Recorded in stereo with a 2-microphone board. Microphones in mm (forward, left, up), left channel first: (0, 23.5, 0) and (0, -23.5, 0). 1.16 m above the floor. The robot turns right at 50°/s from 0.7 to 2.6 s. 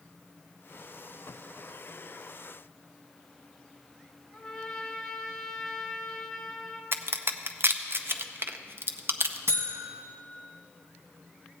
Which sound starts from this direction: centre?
A trumpet, at 4.3 s.